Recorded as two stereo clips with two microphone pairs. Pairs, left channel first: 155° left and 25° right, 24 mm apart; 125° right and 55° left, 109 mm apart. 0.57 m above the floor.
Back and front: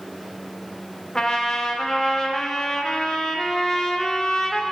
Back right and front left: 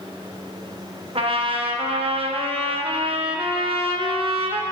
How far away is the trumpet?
About 0.5 m.